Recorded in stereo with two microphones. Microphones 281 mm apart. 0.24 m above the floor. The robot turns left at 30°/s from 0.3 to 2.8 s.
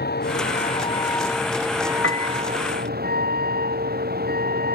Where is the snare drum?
No snare drum in this recording.